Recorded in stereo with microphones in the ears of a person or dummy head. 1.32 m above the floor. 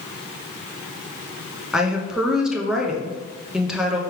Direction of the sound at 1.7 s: 5° left (ahead or behind).